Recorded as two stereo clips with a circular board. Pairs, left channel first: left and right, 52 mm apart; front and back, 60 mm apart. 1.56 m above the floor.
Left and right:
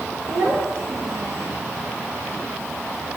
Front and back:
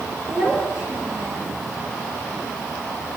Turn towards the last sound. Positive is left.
turn(degrees=-110)